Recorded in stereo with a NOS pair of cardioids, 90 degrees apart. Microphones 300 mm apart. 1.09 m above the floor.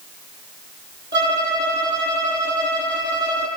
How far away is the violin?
About 6.5 m.